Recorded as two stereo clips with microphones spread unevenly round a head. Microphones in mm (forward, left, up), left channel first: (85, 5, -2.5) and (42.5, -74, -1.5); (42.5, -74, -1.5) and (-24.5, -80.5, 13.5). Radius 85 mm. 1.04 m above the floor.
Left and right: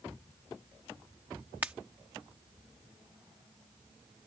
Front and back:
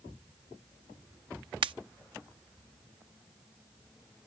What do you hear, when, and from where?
1.6 s a pop: 160° left